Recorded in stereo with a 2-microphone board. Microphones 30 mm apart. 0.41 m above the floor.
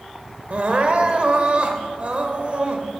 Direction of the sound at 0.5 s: 40° right (ahead or behind).